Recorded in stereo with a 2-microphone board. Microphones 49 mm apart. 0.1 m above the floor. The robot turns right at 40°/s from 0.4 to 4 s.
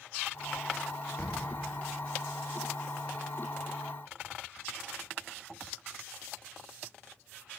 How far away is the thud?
About 7.5 m.